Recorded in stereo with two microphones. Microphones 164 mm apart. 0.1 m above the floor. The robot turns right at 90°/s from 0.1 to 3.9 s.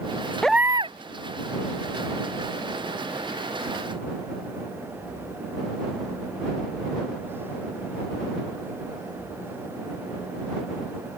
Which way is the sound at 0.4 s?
175° left.